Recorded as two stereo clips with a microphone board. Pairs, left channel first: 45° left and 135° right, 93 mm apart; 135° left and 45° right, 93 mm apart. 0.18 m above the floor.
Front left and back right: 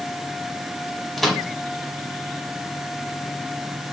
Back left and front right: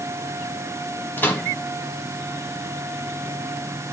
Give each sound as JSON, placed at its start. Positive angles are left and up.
{"t": 1.2, "sound": "a microwave", "azimuth_deg": 130, "distance_m": 1.2}